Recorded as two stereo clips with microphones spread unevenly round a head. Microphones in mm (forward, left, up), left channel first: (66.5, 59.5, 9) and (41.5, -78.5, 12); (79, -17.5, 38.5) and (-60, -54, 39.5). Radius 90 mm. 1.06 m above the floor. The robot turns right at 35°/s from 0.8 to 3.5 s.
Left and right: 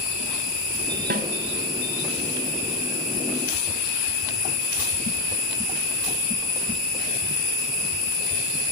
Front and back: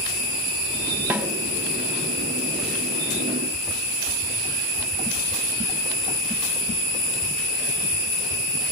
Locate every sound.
1.1 s a snare drum: 85° right, 2.5 m; by 1.3 s 80° right, 2.5 m